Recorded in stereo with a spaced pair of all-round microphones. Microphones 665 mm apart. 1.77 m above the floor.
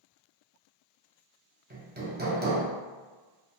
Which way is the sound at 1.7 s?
15° right (ahead or behind).